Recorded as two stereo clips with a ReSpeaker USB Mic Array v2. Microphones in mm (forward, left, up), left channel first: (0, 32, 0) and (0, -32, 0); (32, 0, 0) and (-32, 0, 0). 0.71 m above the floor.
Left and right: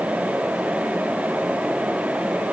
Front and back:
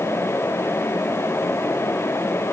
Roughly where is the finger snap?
No finger snap in this recording.